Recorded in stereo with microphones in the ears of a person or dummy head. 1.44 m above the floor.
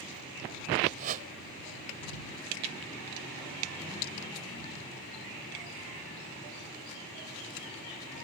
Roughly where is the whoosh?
Right.